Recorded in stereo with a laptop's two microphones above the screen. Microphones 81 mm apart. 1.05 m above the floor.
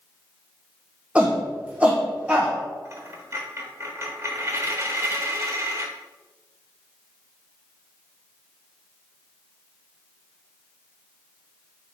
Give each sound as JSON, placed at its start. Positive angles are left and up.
{"t": 1.1, "sound": "a shout", "side_deg": -15, "distance_m": 0.6}
{"t": 2.9, "sound": "a dropped coin", "side_deg": -35, "distance_m": 1.0}